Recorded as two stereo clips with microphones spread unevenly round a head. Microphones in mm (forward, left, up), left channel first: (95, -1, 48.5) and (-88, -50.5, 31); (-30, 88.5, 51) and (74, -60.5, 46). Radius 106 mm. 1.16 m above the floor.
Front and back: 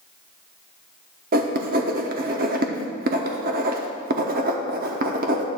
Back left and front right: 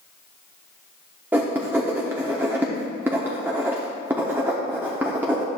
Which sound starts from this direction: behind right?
Writing, at 1.3 s.